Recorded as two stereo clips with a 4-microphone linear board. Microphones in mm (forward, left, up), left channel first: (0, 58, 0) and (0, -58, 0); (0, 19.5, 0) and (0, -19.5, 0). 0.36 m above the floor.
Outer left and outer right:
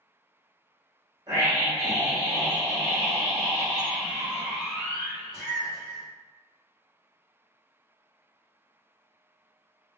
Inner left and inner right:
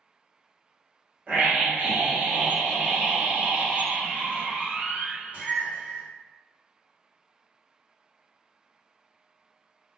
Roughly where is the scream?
Right.